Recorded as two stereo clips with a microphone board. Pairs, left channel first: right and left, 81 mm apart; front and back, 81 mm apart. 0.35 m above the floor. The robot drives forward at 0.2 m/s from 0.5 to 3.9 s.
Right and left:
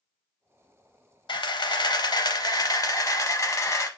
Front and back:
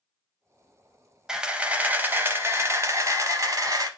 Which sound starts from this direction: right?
A camera shutter, at 1.3 s.